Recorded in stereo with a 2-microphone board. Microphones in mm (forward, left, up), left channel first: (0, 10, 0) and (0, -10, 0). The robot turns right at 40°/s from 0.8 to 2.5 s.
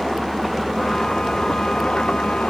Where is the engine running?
Straight ahead; by 2.5 s 65° left.